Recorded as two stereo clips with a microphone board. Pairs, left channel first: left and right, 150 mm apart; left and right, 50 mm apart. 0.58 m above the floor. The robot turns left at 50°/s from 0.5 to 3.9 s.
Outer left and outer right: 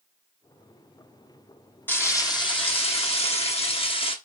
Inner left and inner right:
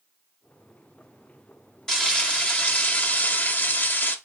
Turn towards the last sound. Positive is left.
turn(degrees=60)